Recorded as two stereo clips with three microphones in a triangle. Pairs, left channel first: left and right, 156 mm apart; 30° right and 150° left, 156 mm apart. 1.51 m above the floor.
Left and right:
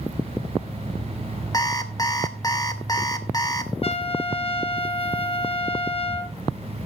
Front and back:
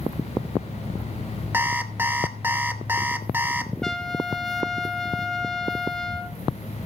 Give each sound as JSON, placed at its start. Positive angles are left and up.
{"t": 1.5, "sound": "an alarm clock", "azimuth_deg": 95, "distance_m": 0.9}
{"t": 3.8, "sound": "a trumpet", "azimuth_deg": 55, "distance_m": 0.7}